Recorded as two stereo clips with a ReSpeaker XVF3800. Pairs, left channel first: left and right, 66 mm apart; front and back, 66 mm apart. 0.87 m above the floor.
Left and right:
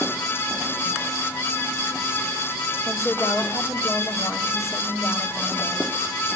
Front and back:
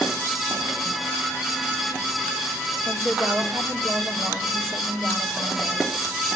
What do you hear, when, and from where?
2.9 s a woman speaking: 135° left, 2.5 m